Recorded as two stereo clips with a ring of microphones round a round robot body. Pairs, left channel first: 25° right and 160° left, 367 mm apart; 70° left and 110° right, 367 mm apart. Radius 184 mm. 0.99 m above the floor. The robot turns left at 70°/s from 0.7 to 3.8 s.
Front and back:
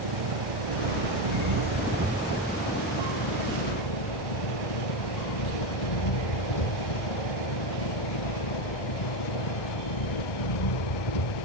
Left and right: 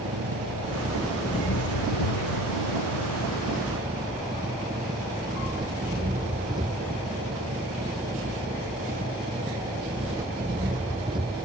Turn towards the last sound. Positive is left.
turn(degrees=-35)